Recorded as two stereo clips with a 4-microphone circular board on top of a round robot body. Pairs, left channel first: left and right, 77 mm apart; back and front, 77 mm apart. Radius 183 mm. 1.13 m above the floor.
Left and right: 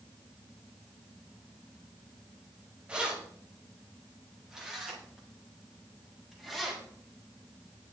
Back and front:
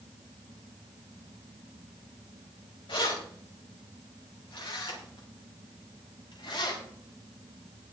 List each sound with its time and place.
2.9 s keys jangling: 165° right, 4.5 m; by 6.8 s straight behind, 7 m